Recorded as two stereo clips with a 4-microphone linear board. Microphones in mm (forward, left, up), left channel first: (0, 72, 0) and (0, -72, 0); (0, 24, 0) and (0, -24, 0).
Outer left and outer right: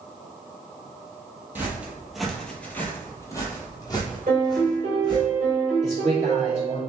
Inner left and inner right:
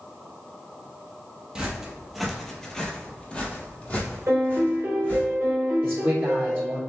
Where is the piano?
60° right (ahead or behind), 1.6 m.